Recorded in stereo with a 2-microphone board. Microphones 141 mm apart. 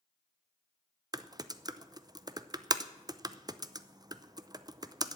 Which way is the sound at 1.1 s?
30° right (ahead or behind).